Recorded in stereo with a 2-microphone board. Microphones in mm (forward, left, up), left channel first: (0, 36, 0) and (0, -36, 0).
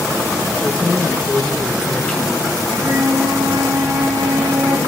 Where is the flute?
50° right (ahead or behind), 3 m.